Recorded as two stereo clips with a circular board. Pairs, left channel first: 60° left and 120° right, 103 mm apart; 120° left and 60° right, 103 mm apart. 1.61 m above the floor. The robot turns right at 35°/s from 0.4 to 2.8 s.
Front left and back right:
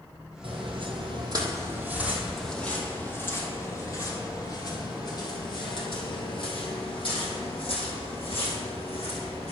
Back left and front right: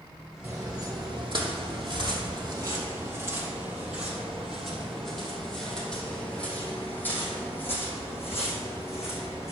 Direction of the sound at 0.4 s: 120° right.